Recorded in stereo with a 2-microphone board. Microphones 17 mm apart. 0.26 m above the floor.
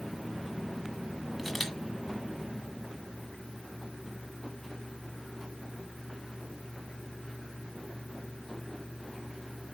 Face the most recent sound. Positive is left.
turn(degrees=-10)  # may be behind; listen again after turning